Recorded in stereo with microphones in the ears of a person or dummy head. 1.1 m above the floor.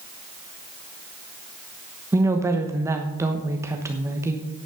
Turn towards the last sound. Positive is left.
turn(degrees=-15)  # may be behind; listen again after turning